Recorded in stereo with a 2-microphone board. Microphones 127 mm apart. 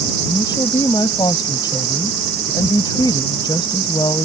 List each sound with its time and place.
0.2 s a woman speaking: 35° left (ahead or behind)